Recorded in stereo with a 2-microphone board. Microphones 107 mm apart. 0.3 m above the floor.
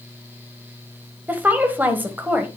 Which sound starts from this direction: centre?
A woman speaking, at 1.3 s.